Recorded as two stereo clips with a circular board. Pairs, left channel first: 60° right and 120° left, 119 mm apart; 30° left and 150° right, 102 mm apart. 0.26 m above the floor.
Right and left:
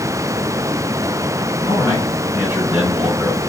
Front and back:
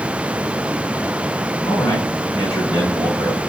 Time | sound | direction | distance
1.6 | a man speaking | 50° left | 2 m